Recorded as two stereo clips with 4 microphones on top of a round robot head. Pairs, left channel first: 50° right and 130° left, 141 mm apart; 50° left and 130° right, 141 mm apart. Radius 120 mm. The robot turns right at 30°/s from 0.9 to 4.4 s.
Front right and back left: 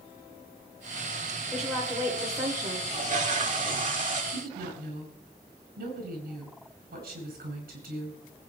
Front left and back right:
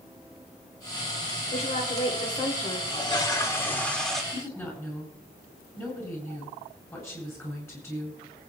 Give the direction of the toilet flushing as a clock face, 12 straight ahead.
9 o'clock.